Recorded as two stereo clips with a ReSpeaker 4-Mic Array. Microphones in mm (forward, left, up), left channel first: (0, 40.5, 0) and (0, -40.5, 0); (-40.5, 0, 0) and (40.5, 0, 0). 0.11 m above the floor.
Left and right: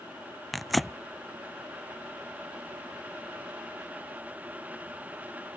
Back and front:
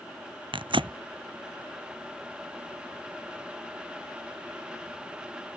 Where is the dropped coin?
No dropped coin in this recording.